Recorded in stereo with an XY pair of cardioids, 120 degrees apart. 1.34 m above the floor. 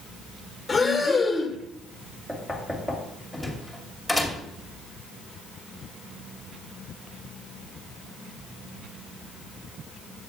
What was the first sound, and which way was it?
Breathing, 15° left.